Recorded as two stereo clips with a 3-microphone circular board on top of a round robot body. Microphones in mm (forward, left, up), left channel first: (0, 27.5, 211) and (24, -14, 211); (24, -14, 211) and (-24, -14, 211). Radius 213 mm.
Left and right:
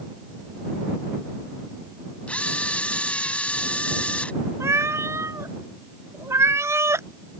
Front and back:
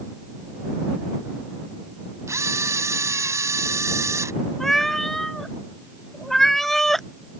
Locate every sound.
2.3 s a camera shutter: 175° right
4.6 s a cat meowing: 85° right